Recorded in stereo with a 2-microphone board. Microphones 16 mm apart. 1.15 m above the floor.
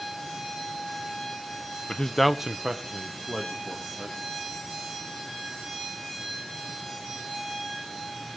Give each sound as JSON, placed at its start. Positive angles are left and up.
{"t": 1.9, "sound": "a man speaking", "side_deg": 40, "distance_m": 0.9}